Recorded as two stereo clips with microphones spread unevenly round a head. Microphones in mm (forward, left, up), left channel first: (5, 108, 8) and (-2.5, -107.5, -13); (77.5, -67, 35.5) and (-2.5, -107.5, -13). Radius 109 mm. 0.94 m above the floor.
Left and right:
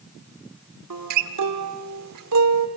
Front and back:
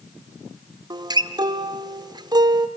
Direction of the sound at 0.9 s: 100° right.